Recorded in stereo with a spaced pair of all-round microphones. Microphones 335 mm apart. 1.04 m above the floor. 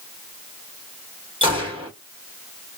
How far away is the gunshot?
About 1.5 m.